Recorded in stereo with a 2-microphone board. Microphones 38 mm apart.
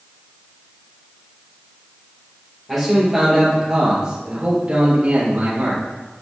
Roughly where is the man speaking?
Centre.